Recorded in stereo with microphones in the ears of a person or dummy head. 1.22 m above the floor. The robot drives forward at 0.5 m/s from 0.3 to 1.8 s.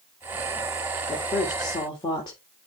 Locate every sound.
1.1 s a woman speaking: 15° left (ahead or behind), 3 m; by 2.4 s 20° left (ahead or behind), 2.5 m